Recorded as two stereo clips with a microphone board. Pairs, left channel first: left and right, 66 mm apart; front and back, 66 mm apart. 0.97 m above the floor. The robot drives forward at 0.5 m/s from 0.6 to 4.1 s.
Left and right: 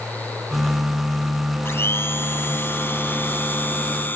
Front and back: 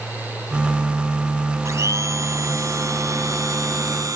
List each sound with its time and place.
1.6 s a blender: 140° left; by 4.2 s 150° left